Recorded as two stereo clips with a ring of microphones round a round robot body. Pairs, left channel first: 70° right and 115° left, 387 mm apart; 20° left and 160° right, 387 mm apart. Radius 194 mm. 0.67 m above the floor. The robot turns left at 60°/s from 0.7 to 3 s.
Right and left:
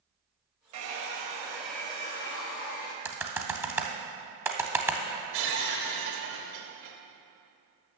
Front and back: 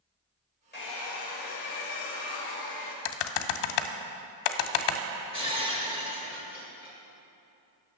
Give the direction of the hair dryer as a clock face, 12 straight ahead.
9 o'clock.